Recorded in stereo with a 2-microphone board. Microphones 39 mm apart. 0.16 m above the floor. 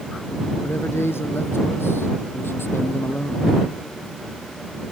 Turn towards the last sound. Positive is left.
turn(degrees=65)  # may be behind; listen again after turning